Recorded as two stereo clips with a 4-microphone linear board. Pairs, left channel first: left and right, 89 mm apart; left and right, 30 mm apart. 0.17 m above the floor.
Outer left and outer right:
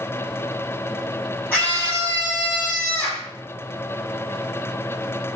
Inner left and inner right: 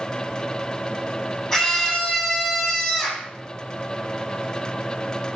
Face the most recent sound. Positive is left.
turn(degrees=25)  # may be behind; listen again after turning